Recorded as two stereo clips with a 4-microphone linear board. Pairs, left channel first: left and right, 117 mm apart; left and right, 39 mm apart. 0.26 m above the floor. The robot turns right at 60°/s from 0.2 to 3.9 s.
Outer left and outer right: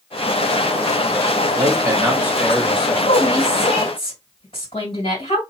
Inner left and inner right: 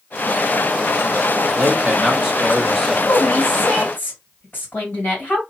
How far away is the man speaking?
About 1.7 m.